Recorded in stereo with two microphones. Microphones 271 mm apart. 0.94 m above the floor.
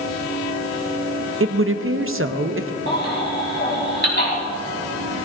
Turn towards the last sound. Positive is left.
turn(degrees=40)  # may be behind; listen again after turning